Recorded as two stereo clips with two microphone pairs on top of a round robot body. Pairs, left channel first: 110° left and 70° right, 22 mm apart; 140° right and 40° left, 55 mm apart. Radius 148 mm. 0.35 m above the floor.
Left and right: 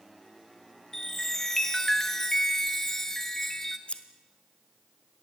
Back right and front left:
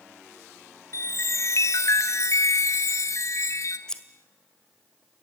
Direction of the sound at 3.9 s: 155° left.